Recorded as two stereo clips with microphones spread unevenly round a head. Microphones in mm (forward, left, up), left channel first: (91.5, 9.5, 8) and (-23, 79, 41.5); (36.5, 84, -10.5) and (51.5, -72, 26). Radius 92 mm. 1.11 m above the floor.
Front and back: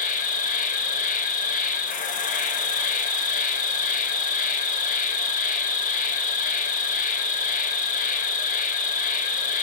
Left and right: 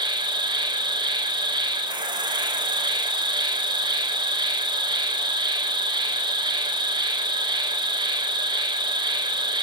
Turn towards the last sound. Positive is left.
turn(degrees=-20)